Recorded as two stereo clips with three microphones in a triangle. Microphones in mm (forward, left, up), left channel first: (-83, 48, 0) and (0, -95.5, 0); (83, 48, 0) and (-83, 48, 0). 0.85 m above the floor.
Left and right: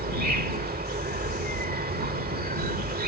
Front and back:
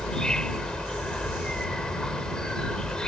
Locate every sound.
0.0 s an insect: 85° right